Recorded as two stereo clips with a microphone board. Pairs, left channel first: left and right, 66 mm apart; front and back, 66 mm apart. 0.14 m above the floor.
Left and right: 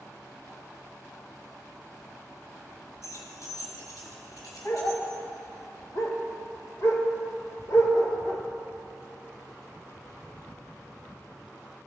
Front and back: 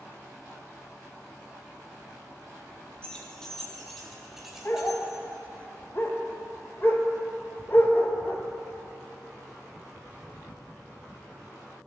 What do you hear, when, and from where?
3.0 s keys jangling: 70° left, 1.7 m; by 5.2 s 105° left, 2 m
4.7 s a dog barking: 50° left, 1.0 m